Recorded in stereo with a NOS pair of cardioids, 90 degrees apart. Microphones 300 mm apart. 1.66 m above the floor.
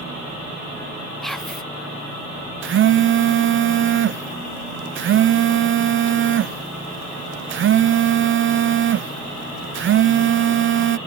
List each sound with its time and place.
1.2 s whispering: straight ahead
2.6 s a phone buzzing: 40° right